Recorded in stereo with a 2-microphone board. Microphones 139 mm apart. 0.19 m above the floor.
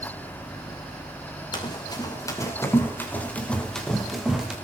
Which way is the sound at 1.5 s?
35° left (ahead or behind).